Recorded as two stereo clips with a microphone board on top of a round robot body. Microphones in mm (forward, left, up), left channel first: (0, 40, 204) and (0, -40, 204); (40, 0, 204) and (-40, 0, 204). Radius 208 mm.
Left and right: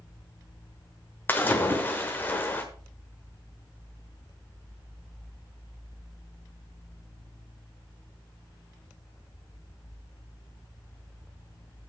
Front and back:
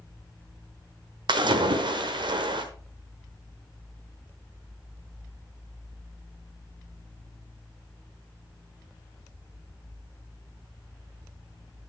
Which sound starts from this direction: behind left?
A splash, at 1.3 s.